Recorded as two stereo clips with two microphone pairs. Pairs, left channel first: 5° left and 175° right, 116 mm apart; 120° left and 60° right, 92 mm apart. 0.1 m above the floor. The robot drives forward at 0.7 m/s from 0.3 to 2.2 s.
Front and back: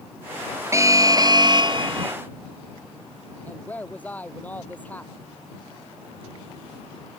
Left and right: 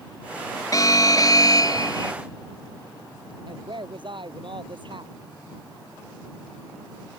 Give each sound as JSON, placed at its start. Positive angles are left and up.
{"t": 0.7, "sound": "an alarm", "azimuth_deg": 135}
{"t": 3.5, "sound": "a woman speaking", "azimuth_deg": -70}